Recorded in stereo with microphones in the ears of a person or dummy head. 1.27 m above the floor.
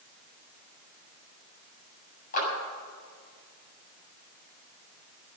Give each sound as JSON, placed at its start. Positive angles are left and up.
{"t": 2.3, "sound": "a clap", "side_deg": 45, "distance_m": 7.5}